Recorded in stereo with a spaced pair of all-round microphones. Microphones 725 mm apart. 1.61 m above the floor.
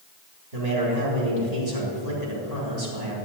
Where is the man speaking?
70° right (ahead or behind), 4 m.